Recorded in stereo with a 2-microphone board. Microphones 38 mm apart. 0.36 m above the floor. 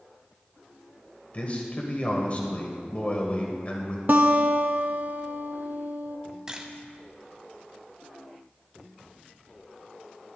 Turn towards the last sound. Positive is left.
turn(degrees=-20)  # may be behind; listen again after turning